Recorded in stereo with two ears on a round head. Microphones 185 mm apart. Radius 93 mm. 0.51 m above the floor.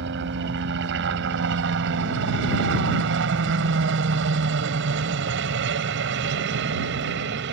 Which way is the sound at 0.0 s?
60° right (ahead or behind).